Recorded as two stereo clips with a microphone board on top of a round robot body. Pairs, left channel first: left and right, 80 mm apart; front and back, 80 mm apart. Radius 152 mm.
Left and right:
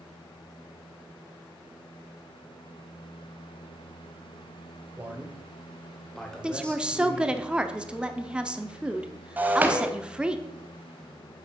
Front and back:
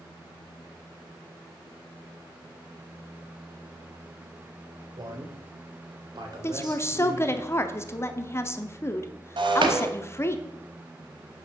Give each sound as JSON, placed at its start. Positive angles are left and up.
{"t": 5.0, "sound": "a man speaking", "azimuth_deg": -155, "distance_m": 1.8}
{"t": 6.4, "sound": "a woman speaking", "azimuth_deg": -20, "distance_m": 1.1}
{"t": 9.4, "sound": "breaking glass", "azimuth_deg": -160, "distance_m": 1.0}